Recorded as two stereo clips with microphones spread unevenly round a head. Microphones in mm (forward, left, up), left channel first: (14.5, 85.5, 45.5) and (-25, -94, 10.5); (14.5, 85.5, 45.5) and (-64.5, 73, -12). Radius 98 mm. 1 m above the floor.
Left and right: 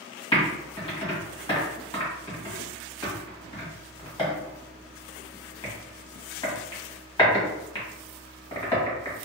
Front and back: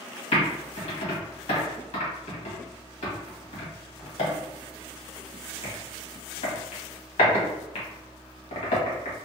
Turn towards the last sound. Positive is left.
turn(degrees=15)